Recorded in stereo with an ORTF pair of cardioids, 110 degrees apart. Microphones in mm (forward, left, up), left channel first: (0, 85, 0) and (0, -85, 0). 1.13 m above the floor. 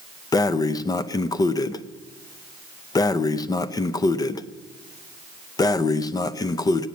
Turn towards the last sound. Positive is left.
turn(degrees=25)